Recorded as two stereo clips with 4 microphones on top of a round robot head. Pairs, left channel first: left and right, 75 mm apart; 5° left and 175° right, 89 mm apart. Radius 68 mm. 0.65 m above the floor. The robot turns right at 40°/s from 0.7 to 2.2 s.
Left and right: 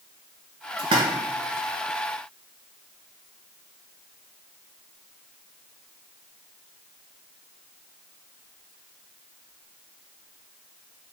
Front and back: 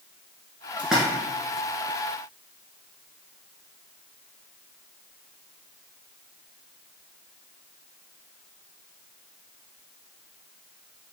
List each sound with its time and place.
0.8 s a splash: 95° right, 1.2 m; by 1.0 s 85° right, 1.2 m